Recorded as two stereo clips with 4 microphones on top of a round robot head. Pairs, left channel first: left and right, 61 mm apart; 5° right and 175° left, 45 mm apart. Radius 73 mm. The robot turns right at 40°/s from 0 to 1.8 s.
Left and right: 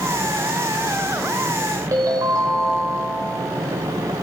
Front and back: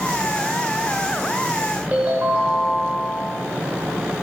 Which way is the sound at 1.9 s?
120° right.